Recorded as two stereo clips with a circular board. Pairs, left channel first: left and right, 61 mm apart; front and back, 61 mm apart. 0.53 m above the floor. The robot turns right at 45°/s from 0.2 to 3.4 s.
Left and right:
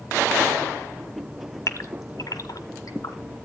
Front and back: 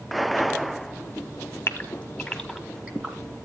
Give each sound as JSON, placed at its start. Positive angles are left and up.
{"t": 1.7, "sound": "a gasp", "azimuth_deg": 55, "distance_m": 1.6}